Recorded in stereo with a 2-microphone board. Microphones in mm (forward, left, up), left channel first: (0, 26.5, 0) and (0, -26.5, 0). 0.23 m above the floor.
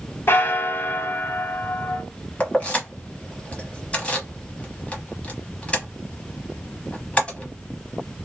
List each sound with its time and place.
0.3 s a bell: 40° left (ahead or behind), 0.6 m
2.4 s keys jangling: 25° left (ahead or behind), 0.9 m